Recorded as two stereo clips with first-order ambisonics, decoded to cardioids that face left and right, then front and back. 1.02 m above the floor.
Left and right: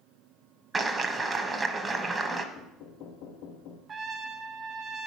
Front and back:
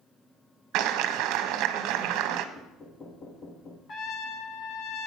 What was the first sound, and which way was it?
A clap, 165° right.